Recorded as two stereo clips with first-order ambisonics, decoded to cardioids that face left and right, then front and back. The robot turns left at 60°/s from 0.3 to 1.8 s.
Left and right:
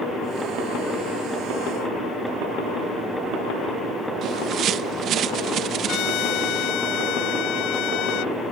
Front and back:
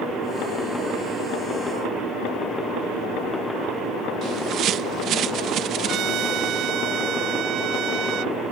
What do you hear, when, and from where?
4.2 s a bird: 135° right
5.9 s a trumpet: 130° left